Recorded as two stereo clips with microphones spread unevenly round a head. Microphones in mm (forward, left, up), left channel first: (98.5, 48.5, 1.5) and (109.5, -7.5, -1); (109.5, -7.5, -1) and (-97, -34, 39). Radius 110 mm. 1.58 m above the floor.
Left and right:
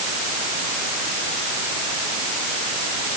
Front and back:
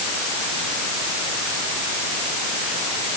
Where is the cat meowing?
No cat meowing in this recording.